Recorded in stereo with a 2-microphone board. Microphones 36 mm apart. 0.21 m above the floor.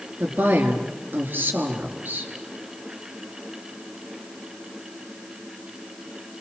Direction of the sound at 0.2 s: 60° right (ahead or behind).